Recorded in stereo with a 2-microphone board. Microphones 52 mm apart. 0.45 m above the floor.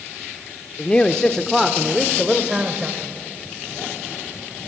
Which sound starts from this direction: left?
A man speaking, at 0.8 s.